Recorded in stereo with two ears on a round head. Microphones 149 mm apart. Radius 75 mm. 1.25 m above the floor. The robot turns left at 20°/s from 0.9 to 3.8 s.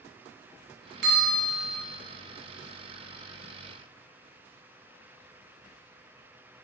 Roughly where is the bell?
Right.